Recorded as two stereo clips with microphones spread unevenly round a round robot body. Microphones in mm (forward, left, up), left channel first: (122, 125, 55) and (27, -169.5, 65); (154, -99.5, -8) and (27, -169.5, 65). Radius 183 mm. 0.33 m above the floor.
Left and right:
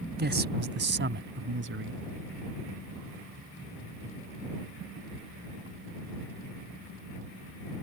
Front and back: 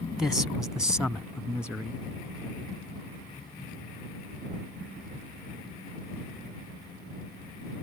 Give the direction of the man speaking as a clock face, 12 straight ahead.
2 o'clock.